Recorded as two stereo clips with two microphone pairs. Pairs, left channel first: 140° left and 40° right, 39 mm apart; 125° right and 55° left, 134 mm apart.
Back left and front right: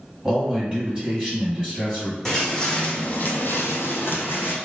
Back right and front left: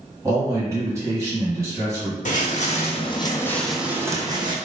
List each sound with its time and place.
0.2 s a man speaking: 25° left, 1.6 m
2.2 s footsteps: 145° right, 0.9 m; by 4.5 s 110° left, 0.8 m